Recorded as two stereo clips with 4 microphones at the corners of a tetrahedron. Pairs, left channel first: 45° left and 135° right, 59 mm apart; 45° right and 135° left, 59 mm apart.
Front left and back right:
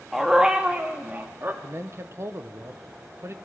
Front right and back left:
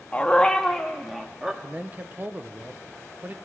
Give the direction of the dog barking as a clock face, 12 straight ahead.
2 o'clock.